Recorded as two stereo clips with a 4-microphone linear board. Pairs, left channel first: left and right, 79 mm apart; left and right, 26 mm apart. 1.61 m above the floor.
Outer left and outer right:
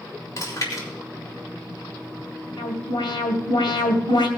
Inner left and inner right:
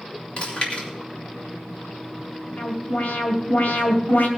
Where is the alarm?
70° left (ahead or behind), 2.5 m.